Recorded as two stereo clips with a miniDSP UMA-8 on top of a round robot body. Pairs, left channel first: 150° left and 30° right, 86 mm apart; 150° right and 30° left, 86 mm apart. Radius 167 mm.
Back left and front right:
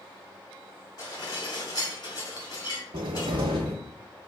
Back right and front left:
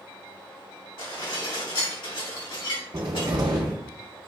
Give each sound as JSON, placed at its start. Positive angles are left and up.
{"t": 1.0, "sound": "dishes clattering", "azimuth_deg": -165, "distance_m": 1.8}
{"t": 2.9, "sound": "a cupboard door", "azimuth_deg": -10, "distance_m": 0.6}